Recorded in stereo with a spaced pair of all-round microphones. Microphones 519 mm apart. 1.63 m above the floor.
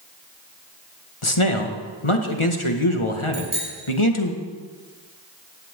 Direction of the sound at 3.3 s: 70° right (ahead or behind).